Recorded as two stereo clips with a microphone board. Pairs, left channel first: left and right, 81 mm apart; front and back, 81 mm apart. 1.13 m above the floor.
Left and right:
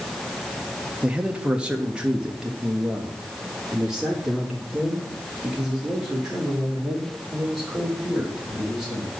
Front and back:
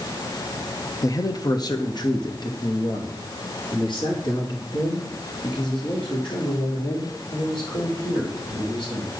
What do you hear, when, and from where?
1.0 s a man speaking: 20° right, 1.0 m; by 9.1 s 5° right, 5 m